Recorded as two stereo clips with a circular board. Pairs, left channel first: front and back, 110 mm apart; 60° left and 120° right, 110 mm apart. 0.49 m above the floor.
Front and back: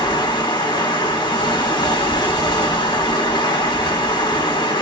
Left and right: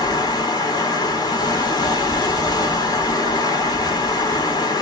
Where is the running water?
25° left, 1.1 m.